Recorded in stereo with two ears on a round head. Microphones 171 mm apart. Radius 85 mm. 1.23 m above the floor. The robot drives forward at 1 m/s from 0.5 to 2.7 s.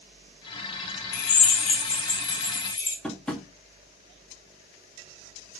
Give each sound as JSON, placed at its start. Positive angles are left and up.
{"t": 1.1, "sound": "a drill", "side_deg": 45, "distance_m": 1.6}
{"t": 3.0, "sound": "tapping", "side_deg": 5, "distance_m": 2.0}